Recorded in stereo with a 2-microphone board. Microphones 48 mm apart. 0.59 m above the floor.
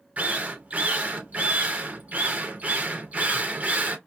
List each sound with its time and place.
0.2 s a drill: 30° right (ahead or behind), 0.6 m